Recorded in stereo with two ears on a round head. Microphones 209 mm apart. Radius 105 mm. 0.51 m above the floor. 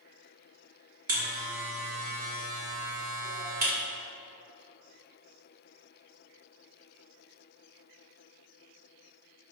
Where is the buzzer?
40° right (ahead or behind), 2 m.